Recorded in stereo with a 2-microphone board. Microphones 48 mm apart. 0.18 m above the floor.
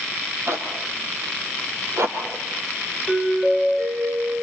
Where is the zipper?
65° right (ahead or behind), 5.5 m.